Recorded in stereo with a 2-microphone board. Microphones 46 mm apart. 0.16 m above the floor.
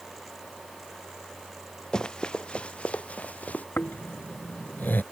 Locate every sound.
1.9 s running footsteps: 15° left (ahead or behind); by 3.6 s 35° left (ahead or behind)
3.8 s snoring: 45° left (ahead or behind)